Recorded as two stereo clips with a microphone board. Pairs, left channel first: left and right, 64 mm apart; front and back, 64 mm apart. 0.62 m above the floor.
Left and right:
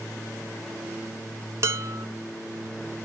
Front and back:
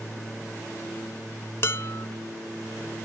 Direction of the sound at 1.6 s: 45° right.